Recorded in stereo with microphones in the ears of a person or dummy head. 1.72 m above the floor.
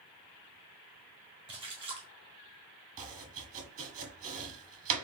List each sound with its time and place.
1.5 s a splash: 30° right (ahead or behind), 1.7 m
3.0 s chopping: 40° right (ahead or behind), 1.2 m